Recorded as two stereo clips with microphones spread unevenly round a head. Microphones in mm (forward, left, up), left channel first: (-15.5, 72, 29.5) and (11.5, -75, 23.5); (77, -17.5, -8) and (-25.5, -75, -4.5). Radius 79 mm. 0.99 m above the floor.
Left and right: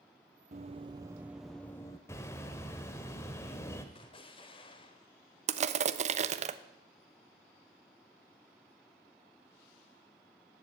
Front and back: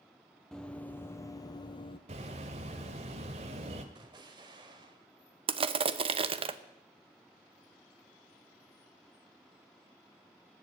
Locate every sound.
0.5 s running footsteps: 55° right, 1.2 m; by 2.0 s 45° left, 1.2 m
2.1 s a bird: 170° left, 1.3 m
4.0 s an explosion: 155° left, 1.2 m
5.5 s crushing: 115° right, 0.9 m